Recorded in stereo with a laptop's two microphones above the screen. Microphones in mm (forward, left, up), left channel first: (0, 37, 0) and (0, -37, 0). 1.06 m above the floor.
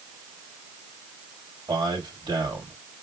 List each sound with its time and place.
1.7 s a man speaking: 70° right (ahead or behind), 3 m